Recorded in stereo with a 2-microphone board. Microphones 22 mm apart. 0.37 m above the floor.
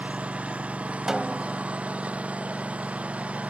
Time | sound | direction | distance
0.0 | a lawn mower | 85° right | ?
1.1 | a snare drum | 25° right (ahead or behind) | ?